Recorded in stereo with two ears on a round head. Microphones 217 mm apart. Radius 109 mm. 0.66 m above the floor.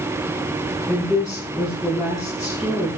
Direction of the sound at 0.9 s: 10° right (ahead or behind).